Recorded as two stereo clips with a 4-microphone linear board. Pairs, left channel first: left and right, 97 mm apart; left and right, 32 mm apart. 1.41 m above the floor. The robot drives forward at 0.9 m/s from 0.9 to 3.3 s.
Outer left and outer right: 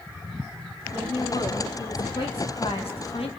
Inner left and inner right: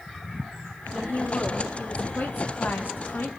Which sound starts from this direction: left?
A woman speaking, at 0.9 s.